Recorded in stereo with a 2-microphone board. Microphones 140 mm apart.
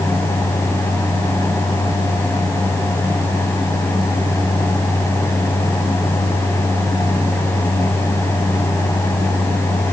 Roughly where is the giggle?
No giggle in this recording.